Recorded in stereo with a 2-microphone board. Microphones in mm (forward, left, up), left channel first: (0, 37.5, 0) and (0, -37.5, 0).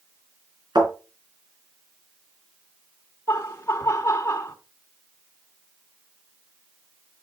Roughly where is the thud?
Right.